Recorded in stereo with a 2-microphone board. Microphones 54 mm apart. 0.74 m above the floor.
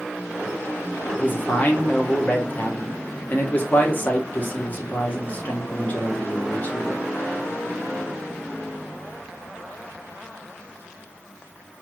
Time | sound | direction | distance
1.2 | a man speaking | 30° left (ahead or behind) | 0.9 m